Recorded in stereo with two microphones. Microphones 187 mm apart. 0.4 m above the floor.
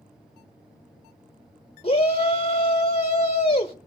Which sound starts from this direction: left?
A shout, at 1.8 s.